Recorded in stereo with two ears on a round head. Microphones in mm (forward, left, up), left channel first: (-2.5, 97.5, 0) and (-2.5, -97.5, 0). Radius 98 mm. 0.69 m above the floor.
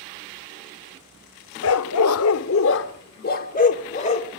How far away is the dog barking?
About 0.6 m.